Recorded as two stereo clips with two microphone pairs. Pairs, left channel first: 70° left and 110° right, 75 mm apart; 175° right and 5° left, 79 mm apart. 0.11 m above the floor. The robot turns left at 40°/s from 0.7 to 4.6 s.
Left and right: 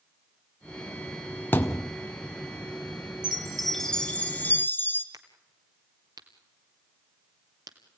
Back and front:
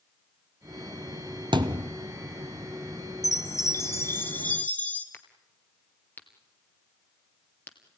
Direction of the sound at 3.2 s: 175° left.